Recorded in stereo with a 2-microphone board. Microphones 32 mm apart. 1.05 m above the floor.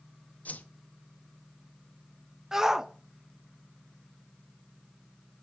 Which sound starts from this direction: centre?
A shout, at 2.5 s.